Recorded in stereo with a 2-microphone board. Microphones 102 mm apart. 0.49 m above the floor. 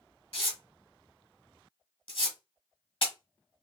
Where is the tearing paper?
65° left (ahead or behind), 1.4 m.